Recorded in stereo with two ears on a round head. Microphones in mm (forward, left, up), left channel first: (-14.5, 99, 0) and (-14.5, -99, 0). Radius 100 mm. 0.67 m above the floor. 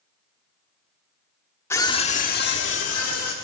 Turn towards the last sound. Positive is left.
turn(degrees=75)  # may be behind; listen again after turning